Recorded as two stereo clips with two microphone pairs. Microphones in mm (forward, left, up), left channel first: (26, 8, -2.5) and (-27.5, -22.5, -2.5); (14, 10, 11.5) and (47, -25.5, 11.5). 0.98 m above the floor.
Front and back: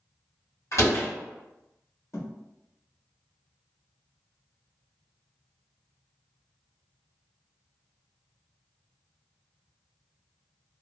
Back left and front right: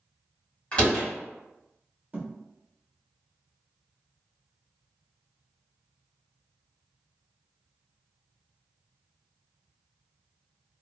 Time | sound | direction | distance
0.7 | a door slam | 65° left | 1.7 m
2.1 | a thud | 10° left | 1.1 m